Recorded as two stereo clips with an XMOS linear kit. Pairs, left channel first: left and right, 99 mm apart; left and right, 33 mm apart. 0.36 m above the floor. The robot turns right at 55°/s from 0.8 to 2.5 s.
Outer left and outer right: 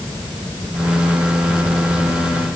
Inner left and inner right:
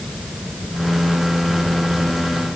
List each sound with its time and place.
Only background noise.